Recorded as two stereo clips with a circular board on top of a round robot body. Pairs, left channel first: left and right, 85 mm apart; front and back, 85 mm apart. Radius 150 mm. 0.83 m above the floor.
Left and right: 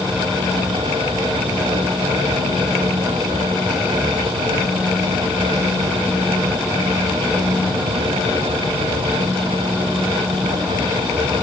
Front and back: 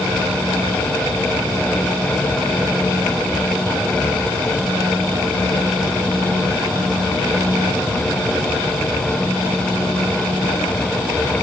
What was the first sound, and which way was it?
Only background noise.